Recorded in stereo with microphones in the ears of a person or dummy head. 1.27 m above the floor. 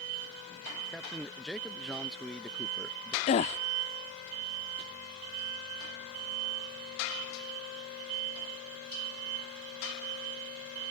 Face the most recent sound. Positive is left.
turn(degrees=30)  # may be behind; listen again after turning